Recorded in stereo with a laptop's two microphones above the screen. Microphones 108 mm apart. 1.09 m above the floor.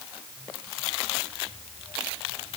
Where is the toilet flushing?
I don't hear a toilet flushing.